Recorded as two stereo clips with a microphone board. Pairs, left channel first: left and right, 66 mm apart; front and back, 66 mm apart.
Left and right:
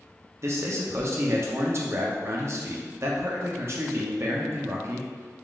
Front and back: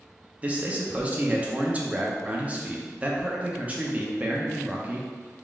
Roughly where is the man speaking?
Behind right.